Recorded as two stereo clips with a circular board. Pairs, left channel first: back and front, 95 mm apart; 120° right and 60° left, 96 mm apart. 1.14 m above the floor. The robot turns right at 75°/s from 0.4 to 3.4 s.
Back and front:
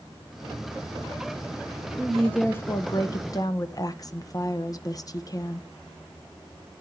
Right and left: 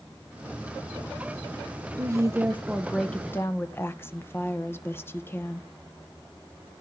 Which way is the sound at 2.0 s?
85° left.